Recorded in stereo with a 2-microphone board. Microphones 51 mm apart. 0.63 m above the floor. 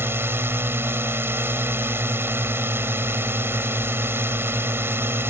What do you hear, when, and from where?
0.0 s a drone: 55° right (ahead or behind)